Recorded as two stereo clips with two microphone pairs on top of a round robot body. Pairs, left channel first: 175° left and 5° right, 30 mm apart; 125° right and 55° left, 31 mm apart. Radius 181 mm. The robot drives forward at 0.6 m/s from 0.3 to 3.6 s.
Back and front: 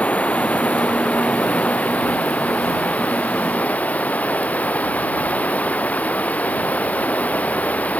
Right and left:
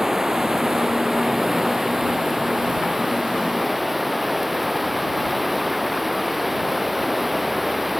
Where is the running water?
135° left; by 8.0 s 145° left.